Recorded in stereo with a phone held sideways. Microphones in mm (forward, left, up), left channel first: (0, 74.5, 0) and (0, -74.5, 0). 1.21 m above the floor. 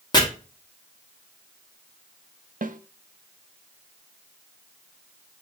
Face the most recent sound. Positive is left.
turn(degrees=-65)  # may be behind; listen again after turning